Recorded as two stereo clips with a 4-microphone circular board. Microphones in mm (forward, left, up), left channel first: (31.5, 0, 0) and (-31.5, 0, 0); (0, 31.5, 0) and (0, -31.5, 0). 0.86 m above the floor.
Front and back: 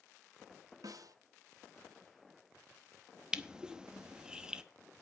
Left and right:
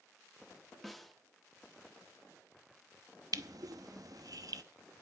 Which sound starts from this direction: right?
Crushing, at 3.3 s.